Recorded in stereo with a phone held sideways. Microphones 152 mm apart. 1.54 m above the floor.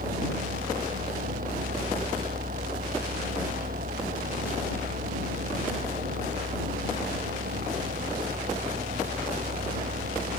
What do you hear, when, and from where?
0.0 s a fan: 70° right (ahead or behind)